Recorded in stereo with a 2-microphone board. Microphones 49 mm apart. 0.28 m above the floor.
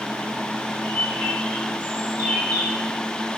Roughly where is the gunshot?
I don't hear a gunshot.